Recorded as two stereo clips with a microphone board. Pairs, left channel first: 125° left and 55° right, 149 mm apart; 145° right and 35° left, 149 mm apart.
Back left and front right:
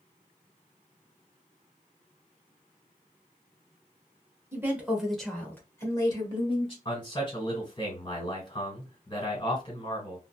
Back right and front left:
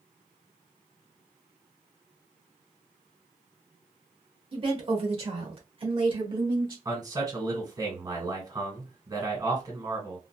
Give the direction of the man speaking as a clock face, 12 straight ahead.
9 o'clock.